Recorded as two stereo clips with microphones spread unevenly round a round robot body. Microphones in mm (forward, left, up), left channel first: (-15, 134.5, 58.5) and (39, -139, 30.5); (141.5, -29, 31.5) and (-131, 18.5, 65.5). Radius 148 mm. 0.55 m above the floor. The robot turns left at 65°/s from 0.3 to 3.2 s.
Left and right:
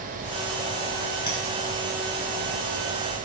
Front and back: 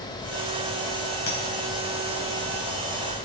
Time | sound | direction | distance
1.3 | a clink | 25° left | 3 m